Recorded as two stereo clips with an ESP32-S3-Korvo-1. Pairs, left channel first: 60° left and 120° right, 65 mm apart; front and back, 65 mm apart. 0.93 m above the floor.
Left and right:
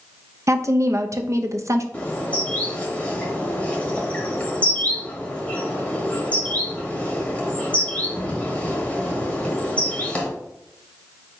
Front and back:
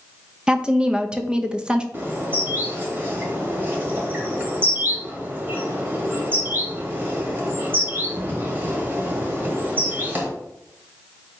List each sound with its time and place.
0.5 s a woman speaking: 110° right, 0.5 m
1.9 s a bird: 125° left, 1.3 m